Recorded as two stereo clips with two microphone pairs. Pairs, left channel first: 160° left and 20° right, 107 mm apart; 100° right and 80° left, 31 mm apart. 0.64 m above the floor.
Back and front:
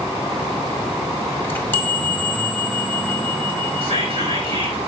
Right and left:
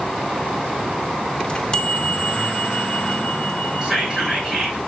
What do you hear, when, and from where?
1.4 s a chime: 140° right, 1.6 m
3.8 s whispering: 5° left, 7.5 m